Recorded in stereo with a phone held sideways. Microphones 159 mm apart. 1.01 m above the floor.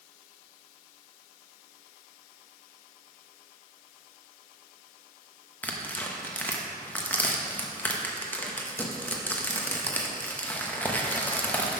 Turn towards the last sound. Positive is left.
turn(degrees=10)  # may be behind; listen again after turning